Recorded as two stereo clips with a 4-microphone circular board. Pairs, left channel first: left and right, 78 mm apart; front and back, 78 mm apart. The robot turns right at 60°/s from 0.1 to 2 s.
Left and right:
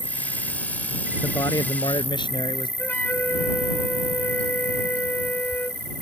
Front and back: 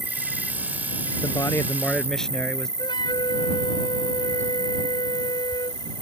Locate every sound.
0.0 s an insect: 90° right; by 6.0 s 25° left
1.2 s a man speaking: 35° left; by 2.7 s 80° left
2.8 s a flute: 20° left